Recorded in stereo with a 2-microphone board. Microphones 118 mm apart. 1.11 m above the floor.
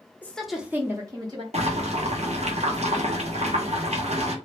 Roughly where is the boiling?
Right.